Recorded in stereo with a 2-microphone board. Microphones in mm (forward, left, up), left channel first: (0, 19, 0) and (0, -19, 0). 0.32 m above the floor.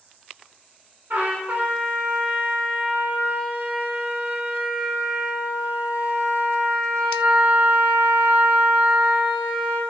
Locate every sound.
1.1 s a trumpet: 65° right (ahead or behind), 0.6 m